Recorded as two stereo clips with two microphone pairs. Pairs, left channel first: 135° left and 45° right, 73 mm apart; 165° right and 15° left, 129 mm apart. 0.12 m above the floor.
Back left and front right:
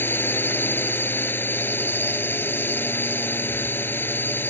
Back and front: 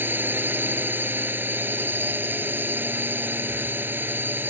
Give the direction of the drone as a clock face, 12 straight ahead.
9 o'clock.